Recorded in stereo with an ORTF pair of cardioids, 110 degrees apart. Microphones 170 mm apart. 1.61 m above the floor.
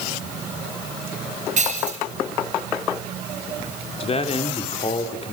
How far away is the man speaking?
About 4 m.